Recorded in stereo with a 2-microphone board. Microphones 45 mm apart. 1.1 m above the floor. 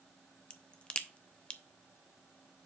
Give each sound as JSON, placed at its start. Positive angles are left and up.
{"t": 0.5, "sound": "a crack", "side_deg": 25, "distance_m": 0.5}